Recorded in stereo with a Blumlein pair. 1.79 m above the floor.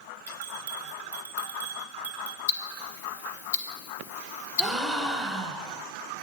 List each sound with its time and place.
0.3 s a bell: 70° right, 0.8 m
2.5 s ticking: 65° left, 0.6 m
4.6 s a gasp: 10° right, 0.7 m